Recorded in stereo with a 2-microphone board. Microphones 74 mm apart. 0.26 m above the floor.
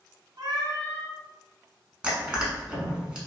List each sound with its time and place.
0.4 s a cat meowing: 75° right (ahead or behind), 0.7 m
2.0 s crushing: 15° right (ahead or behind), 1.0 m